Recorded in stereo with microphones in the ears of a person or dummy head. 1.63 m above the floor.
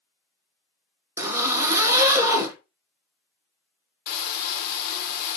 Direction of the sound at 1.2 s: 15° right (ahead or behind).